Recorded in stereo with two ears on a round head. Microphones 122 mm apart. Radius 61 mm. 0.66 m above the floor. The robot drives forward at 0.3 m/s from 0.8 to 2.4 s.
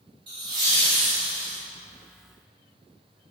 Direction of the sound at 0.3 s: 40° right (ahead or behind).